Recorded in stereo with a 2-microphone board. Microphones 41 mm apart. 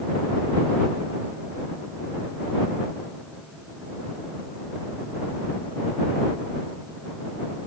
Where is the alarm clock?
No alarm clock in this recording.